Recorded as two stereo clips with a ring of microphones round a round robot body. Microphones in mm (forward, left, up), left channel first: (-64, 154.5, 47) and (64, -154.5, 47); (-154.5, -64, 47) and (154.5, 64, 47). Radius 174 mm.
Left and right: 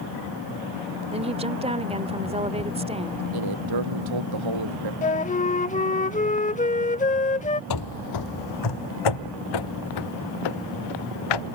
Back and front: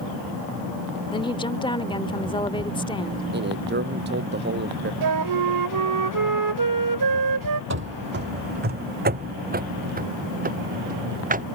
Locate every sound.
1.1 s a woman speaking: 105° right
3.3 s a man speaking: 40° right
5.0 s a flute: 45° left
7.7 s running footsteps: 80° left; by 11.4 s 90° left